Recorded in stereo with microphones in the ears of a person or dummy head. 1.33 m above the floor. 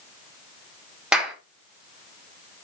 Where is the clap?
5° right (ahead or behind), 2.5 m.